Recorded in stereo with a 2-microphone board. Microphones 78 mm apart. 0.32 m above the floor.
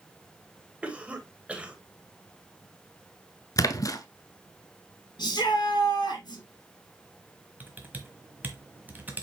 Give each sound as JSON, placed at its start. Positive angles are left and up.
{"t": 0.8, "sound": "a cough", "side_deg": -15, "distance_m": 1.5}
{"t": 3.6, "sound": "a splash", "side_deg": 45, "distance_m": 0.8}
{"t": 5.2, "sound": "a shout", "side_deg": 65, "distance_m": 4.0}
{"t": 7.6, "sound": "typing on a keyboard", "side_deg": -25, "distance_m": 1.4}